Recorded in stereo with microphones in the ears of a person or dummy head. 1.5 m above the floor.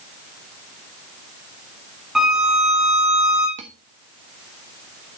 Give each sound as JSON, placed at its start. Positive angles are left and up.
{"t": 2.1, "sound": "a violin", "side_deg": -5, "distance_m": 1.6}
{"t": 3.6, "sound": "cutlery clinking", "side_deg": -35, "distance_m": 1.4}